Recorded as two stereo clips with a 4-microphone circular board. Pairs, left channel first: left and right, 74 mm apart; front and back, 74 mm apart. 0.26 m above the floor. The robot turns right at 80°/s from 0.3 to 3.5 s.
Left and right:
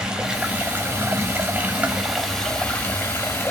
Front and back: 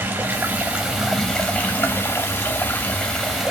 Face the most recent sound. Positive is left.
turn(degrees=100)